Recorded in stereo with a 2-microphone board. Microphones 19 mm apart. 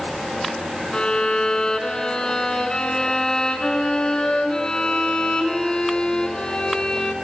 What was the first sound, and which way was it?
A violin, 45° left (ahead or behind).